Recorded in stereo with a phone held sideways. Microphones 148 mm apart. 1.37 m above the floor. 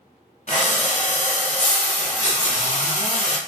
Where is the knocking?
I don't hear knocking.